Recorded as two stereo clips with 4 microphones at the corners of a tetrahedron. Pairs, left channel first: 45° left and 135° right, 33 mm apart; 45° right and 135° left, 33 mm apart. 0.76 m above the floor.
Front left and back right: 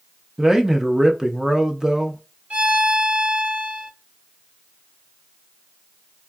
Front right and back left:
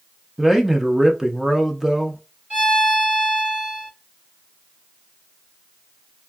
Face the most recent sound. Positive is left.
turn(degrees=-175)